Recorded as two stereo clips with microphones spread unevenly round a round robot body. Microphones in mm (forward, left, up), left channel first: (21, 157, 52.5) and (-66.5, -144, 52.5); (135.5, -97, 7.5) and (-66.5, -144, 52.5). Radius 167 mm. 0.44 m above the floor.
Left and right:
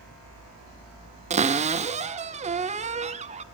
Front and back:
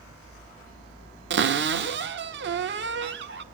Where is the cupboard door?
165° right, 0.8 m.